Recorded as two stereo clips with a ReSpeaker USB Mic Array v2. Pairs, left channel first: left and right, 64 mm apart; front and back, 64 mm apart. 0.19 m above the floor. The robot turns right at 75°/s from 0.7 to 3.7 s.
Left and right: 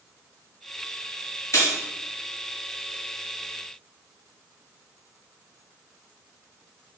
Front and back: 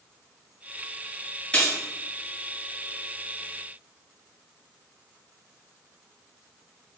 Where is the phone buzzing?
I don't hear a phone buzzing.